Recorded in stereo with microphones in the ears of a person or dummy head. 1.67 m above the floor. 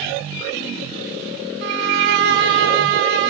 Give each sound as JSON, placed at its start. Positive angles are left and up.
{"t": 1.6, "sound": "a violin", "side_deg": -65, "distance_m": 1.0}